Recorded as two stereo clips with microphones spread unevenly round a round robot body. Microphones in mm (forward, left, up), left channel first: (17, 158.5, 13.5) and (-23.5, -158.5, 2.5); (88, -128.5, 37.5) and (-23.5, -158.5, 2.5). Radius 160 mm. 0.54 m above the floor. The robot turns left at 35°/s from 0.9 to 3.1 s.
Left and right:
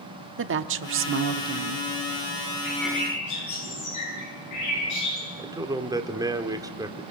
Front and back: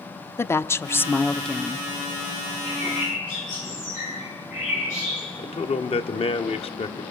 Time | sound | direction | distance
0.4 | a woman speaking | 65° right | 0.9 m
2.6 | a bird | 65° left | 9.5 m
5.4 | a man speaking | 25° right | 1.5 m